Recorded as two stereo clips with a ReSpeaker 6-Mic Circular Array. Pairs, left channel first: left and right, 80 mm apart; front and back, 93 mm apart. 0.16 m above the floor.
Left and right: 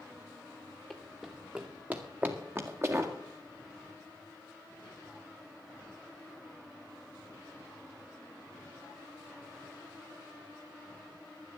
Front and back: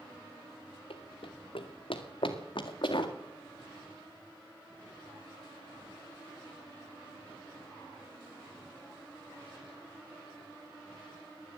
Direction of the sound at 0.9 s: Straight ahead.